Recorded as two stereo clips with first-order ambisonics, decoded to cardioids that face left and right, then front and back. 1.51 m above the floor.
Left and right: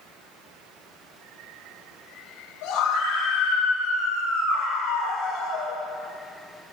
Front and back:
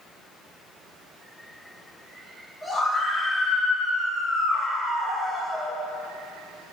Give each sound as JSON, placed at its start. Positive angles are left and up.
{"t": 2.6, "sound": "a scream", "azimuth_deg": 95, "distance_m": 5.5}